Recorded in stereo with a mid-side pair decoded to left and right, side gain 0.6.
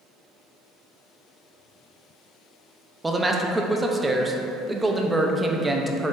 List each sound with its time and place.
3.0 s a man speaking: 15° right, 0.5 m